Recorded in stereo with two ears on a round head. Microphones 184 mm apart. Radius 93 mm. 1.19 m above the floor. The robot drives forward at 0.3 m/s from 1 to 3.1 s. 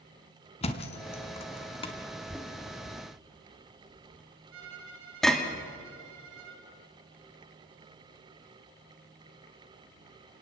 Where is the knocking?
Centre (ahead or behind), 2 m.